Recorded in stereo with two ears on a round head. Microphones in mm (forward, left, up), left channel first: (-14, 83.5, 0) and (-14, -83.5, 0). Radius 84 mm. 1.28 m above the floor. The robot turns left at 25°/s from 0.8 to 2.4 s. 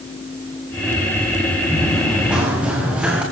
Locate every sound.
1.7 s running footsteps: 10° left (ahead or behind), 7.5 m; by 3.2 s 5° right (ahead or behind), 8.5 m